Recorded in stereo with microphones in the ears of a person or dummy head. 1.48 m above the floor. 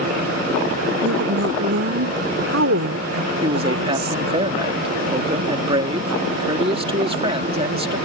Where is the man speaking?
30° right (ahead or behind).